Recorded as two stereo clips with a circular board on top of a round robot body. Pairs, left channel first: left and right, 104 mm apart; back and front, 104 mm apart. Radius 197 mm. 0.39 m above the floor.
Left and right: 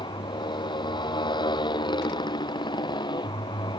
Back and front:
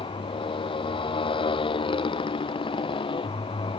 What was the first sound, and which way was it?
A motorcycle, 140° left.